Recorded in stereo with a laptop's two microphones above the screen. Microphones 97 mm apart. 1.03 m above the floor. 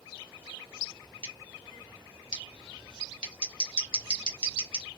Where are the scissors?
60° right (ahead or behind), 1.6 m.